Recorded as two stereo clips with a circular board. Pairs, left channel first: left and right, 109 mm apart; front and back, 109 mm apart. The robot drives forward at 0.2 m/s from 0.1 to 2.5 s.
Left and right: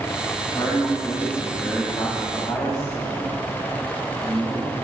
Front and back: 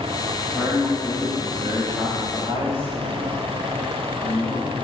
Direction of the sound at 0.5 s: 120° left.